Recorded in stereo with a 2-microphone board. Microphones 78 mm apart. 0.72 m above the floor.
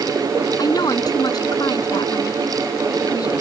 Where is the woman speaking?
60° left (ahead or behind).